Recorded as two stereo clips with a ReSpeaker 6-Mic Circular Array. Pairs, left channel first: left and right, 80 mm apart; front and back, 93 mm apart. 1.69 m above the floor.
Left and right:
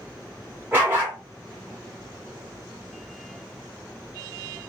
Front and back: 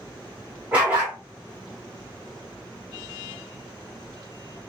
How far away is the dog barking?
About 1.2 m.